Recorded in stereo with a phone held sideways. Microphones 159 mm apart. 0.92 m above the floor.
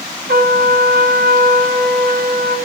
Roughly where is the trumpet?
Right.